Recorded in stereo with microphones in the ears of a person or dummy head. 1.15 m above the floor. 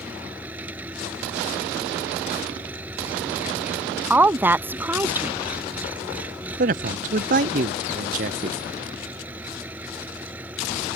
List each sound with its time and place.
0.0 s an engine running: 10° right (ahead or behind)
4.1 s a woman speaking: 10° right (ahead or behind)
6.6 s a man speaking: 45° right (ahead or behind)